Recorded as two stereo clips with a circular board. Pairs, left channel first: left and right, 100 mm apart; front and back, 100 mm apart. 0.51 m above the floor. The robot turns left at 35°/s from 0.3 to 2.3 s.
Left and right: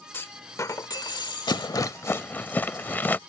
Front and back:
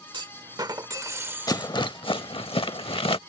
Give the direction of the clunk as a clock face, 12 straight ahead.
7 o'clock.